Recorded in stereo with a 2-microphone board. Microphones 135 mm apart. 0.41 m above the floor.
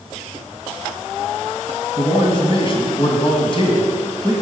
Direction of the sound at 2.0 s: 40° left (ahead or behind).